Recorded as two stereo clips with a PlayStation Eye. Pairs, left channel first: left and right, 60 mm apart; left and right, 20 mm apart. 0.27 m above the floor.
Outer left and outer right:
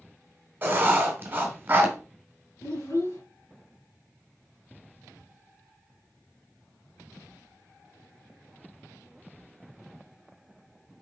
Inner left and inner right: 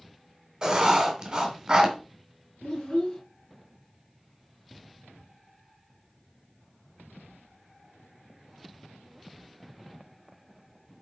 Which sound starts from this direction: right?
Writing, at 0.6 s.